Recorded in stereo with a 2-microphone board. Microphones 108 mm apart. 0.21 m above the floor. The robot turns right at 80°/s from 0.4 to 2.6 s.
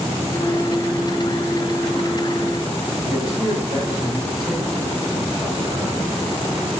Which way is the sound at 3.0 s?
20° left (ahead or behind).